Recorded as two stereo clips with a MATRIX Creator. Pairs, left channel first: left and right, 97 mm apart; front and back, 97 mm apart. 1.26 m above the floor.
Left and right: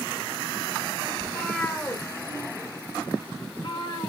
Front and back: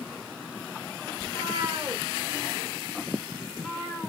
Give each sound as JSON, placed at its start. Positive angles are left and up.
{"t": 1.2, "sound": "a cat meowing", "azimuth_deg": 180, "distance_m": 1.3}